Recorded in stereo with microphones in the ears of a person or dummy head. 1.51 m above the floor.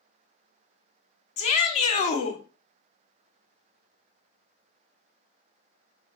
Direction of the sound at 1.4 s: 35° left (ahead or behind).